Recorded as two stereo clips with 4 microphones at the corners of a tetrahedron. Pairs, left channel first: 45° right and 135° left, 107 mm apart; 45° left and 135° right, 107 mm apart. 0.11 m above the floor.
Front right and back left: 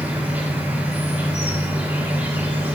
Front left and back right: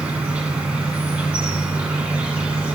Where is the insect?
170° left, 1.2 m.